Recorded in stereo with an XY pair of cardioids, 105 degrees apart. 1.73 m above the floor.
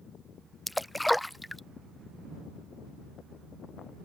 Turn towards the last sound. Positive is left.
turn(degrees=5)